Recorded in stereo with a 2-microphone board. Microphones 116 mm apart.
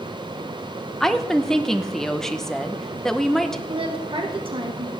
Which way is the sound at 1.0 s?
5° left (ahead or behind).